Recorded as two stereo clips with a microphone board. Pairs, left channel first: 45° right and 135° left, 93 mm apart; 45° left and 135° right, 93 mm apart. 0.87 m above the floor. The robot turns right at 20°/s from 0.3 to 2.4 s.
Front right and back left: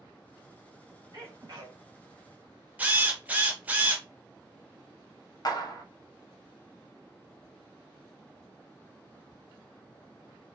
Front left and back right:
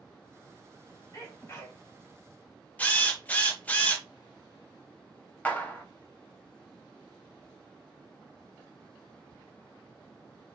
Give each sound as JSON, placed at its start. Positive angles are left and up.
{"t": 1.1, "sound": "a sneeze", "azimuth_deg": 90, "distance_m": 2.0}
{"t": 2.8, "sound": "a drill", "azimuth_deg": 95, "distance_m": 0.8}
{"t": 5.5, "sound": "a clap", "azimuth_deg": -20, "distance_m": 0.9}